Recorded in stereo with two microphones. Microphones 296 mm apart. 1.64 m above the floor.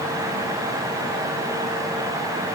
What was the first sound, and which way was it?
Only background noise.